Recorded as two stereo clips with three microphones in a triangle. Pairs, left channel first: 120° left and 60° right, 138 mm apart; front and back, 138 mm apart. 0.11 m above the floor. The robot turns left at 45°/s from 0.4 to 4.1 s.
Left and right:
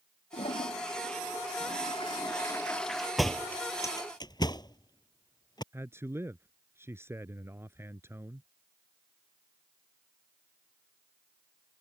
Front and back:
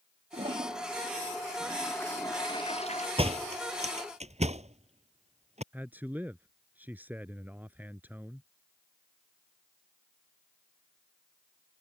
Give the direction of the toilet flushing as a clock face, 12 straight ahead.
7 o'clock.